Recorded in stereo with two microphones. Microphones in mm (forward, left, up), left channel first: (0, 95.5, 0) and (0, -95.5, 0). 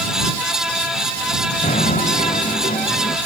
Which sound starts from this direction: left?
Knocking, at 1.6 s.